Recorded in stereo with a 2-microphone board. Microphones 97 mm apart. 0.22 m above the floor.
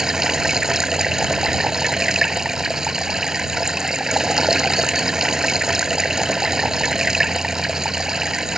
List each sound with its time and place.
0.0 s running water: 5° right (ahead or behind)